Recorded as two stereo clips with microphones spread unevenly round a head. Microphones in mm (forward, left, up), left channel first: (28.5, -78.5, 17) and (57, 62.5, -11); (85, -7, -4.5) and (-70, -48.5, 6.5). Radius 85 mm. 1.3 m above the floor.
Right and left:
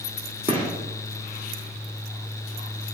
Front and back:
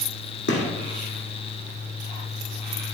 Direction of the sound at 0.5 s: 25° left.